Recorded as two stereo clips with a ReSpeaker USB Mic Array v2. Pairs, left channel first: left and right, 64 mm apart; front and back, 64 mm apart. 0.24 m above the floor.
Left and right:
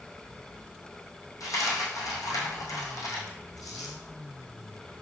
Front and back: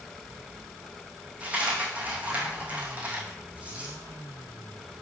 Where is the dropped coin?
115° left, 1.9 m.